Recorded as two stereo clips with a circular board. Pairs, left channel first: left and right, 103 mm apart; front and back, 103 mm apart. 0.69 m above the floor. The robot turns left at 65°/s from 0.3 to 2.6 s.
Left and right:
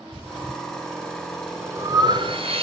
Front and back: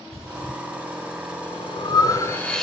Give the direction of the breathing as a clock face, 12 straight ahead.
10 o'clock.